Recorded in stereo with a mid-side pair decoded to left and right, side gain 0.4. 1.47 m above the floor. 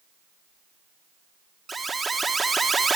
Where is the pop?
I don't hear a pop.